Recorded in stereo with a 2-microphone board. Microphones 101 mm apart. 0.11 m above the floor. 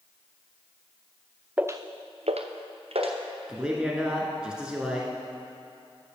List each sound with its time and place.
1.6 s footsteps: 15° right (ahead or behind), 0.6 m; by 3.1 s 70° right (ahead or behind), 1.8 m
3.5 s a man speaking: 10° right (ahead or behind), 1.3 m